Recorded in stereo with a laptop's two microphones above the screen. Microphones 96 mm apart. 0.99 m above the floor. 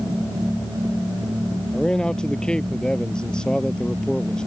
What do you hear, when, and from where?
1.7 s a man speaking: 10° left (ahead or behind)